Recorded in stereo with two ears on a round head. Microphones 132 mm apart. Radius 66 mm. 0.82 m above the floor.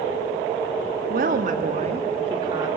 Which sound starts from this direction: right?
A woman speaking, at 1.1 s.